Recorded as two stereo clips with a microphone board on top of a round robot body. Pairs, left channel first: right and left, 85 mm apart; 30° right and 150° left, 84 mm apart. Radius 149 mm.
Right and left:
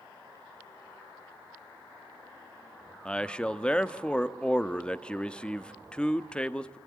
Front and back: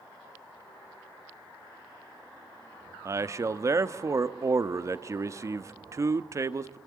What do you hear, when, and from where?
3.0 s a man speaking: 165° right, 1.1 m